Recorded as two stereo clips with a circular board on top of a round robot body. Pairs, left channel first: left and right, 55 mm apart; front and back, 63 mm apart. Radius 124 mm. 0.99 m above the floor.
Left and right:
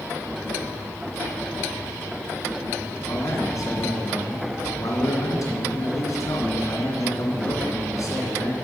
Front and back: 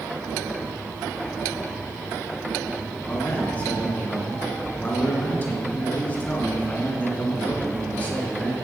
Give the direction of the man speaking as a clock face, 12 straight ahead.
10 o'clock.